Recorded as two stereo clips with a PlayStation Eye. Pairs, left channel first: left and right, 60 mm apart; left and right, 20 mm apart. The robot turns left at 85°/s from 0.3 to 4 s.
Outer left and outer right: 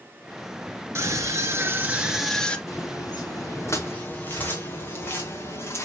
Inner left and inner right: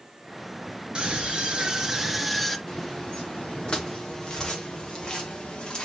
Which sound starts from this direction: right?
A scream, at 0.9 s.